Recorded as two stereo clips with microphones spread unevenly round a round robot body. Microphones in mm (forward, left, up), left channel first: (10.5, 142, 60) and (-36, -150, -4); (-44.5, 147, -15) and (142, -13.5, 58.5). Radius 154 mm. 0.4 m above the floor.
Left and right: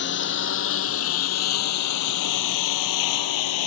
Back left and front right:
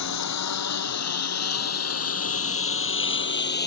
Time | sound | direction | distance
0.0 | a lawn mower | 135° left | ?